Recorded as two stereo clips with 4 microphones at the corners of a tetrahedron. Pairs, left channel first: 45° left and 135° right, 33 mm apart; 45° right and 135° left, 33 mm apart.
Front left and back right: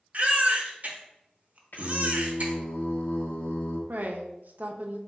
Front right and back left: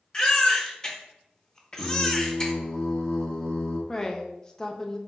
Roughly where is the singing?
Ahead.